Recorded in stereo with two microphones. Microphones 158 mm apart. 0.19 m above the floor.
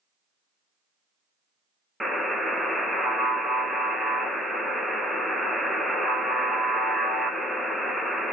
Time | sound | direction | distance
2.0 | a buzzer | centre (ahead or behind) | 0.5 m